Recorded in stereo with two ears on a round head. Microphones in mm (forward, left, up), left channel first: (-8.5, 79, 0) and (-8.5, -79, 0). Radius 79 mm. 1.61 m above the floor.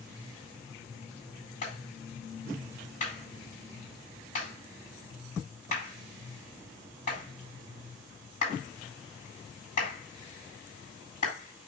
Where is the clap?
40° left (ahead or behind), 8 m.